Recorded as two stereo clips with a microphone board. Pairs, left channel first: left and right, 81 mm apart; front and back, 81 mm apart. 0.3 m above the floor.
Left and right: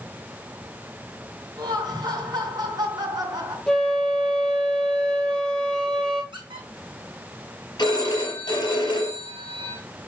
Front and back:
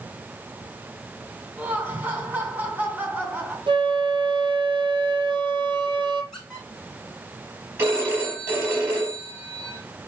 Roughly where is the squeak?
Right.